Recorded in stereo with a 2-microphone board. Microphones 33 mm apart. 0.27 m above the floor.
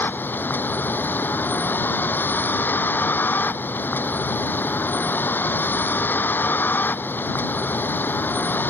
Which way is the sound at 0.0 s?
70° left (ahead or behind).